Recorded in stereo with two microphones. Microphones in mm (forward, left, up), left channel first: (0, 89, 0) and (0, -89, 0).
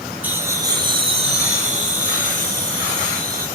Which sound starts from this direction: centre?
Laughter, at 0.2 s.